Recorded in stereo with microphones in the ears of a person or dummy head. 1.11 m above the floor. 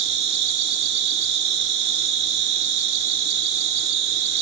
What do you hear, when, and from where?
0.0 s an insect: 60° right (ahead or behind), 0.8 m